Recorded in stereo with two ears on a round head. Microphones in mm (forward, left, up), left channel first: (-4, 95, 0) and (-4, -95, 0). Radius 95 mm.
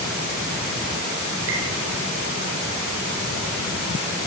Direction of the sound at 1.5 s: 65° right (ahead or behind).